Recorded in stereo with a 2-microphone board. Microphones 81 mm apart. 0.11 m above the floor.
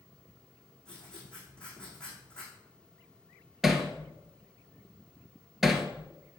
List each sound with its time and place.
0.8 s writing: 10° left (ahead or behind), 6.5 m
3.6 s hammering: 5° right (ahead or behind), 1.5 m